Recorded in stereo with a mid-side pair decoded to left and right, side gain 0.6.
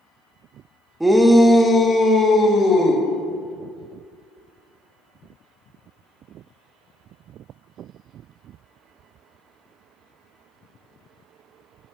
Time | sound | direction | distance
1.0 | a shout | 10° right | 0.8 m